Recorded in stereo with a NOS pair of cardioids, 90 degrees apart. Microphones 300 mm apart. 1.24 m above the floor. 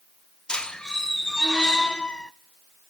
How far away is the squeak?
About 0.6 m.